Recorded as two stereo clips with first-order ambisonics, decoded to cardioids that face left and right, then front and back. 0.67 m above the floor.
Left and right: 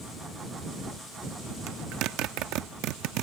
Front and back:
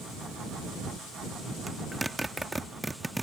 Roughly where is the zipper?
Right.